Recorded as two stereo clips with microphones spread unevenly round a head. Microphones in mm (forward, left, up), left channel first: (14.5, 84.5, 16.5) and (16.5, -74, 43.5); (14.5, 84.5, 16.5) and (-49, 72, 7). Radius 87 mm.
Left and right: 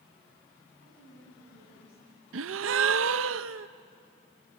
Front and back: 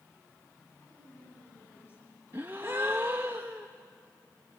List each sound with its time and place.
0.8 s a woman speaking: 65° left, 9.5 m
2.3 s a gasp: 90° right, 0.6 m